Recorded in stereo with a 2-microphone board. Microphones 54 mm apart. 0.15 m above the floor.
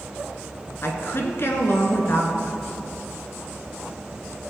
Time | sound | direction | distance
0.8 | a woman speaking | 50° left (ahead or behind) | 1.8 m